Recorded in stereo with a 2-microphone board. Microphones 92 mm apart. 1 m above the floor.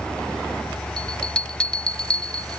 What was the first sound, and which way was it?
A bell, 10° left (ahead or behind).